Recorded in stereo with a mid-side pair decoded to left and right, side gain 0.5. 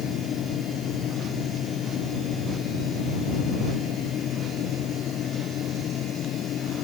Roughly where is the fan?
Ahead left.